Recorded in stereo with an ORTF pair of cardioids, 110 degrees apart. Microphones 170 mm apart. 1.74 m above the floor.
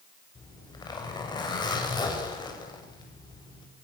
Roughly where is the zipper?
Ahead left.